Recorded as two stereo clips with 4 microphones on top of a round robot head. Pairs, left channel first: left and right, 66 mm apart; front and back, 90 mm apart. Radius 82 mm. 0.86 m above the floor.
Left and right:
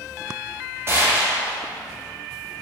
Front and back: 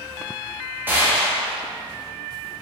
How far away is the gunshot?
About 1.0 m.